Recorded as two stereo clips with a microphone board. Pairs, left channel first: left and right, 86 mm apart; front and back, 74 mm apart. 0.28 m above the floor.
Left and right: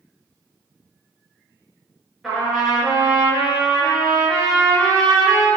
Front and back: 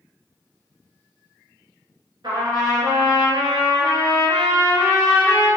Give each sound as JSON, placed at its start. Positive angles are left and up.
{"t": 2.2, "sound": "a trumpet", "azimuth_deg": -175, "distance_m": 1.0}